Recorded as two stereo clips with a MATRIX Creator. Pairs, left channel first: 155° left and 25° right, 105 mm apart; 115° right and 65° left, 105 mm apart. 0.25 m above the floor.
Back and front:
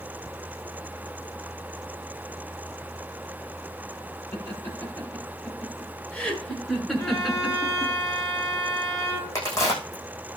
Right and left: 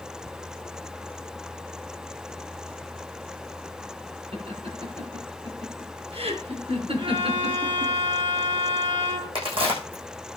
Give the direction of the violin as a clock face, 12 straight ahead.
9 o'clock.